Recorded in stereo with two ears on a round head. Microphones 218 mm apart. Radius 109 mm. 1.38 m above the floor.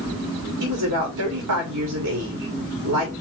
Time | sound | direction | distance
0.6 | a woman speaking | 80° right | 3 m